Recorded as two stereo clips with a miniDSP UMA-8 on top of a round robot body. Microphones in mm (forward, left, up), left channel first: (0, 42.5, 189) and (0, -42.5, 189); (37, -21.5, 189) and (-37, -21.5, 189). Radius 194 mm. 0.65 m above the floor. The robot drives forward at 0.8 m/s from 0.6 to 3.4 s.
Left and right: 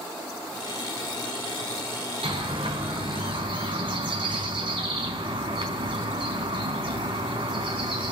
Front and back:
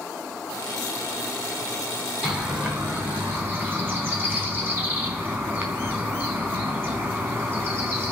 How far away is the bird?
About 4 m.